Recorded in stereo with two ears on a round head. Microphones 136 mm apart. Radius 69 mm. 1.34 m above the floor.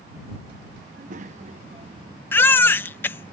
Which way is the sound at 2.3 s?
15° left (ahead or behind).